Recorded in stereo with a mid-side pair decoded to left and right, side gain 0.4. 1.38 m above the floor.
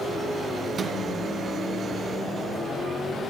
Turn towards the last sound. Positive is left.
turn(degrees=-55)